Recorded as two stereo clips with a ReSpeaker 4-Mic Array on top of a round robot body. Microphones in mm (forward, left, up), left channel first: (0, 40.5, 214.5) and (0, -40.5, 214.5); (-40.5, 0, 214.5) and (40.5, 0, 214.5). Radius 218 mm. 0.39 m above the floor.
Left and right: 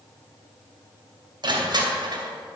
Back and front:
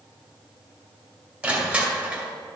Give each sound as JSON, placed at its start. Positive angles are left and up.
{"t": 1.4, "sound": "crushing", "azimuth_deg": -70, "distance_m": 2.0}